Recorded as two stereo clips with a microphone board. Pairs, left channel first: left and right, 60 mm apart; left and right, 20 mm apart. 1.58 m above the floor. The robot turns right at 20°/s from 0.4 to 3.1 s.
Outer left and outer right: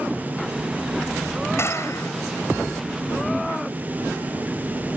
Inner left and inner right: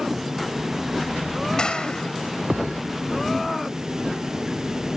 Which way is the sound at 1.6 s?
45° left (ahead or behind).